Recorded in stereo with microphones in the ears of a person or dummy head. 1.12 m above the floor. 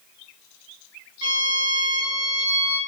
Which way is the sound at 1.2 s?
60° right (ahead or behind).